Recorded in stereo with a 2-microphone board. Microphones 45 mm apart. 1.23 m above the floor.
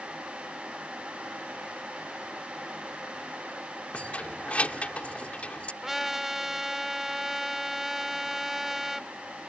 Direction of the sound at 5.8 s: 5° right (ahead or behind).